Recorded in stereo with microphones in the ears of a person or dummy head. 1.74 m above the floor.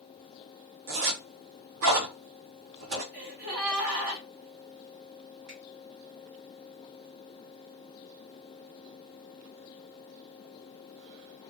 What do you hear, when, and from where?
0.9 s a zipper: 60° right (ahead or behind), 0.7 m
3.1 s a gasp: 45° right (ahead or behind), 0.8 m
5.5 s a finger snap: 45° right (ahead or behind), 1.2 m